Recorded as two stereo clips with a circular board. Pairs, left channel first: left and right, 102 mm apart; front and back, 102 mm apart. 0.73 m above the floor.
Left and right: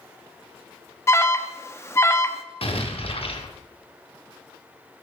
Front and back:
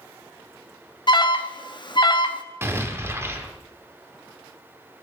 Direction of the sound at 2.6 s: 115° left.